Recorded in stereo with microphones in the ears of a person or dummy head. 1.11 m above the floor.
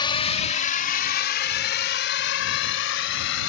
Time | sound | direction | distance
0.0 | a drone | 25° left (ahead or behind) | ?